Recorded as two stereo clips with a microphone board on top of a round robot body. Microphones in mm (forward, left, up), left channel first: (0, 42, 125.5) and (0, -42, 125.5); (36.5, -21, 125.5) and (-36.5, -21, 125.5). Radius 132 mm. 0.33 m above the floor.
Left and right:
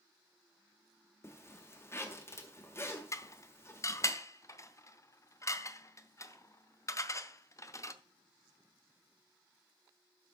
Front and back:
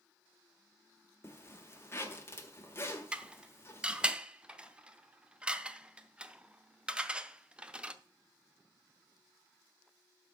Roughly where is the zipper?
Ahead left.